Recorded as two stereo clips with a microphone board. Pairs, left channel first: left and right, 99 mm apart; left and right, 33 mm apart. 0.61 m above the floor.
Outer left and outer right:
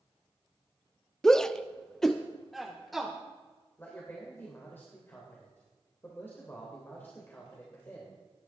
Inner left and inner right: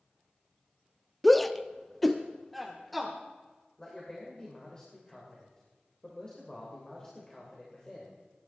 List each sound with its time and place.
1.2 s a shout: 5° left (ahead or behind), 0.6 m; by 3.1 s centre (ahead or behind), 1.7 m
3.8 s a man speaking: 20° left (ahead or behind), 3 m